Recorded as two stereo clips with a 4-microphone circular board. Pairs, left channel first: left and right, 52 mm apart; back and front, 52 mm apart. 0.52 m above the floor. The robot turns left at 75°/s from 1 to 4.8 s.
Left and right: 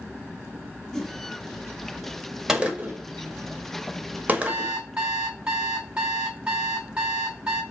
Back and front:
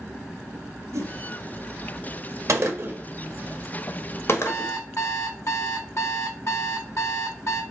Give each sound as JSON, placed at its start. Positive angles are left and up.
{"t": 0.9, "sound": "a whoosh", "azimuth_deg": 5, "distance_m": 0.9}
{"t": 2.5, "sound": "a gunshot", "azimuth_deg": -10, "distance_m": 1.2}
{"t": 4.5, "sound": "an alarm clock", "azimuth_deg": -135, "distance_m": 2.5}